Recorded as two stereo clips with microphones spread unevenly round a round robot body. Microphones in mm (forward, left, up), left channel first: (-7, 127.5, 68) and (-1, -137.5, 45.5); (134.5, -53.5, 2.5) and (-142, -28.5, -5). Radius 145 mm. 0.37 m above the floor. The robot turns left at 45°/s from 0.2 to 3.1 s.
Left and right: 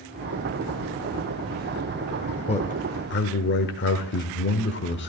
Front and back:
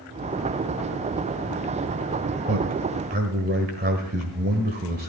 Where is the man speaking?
160° left, 1.3 m; by 5.1 s 130° left, 1.3 m.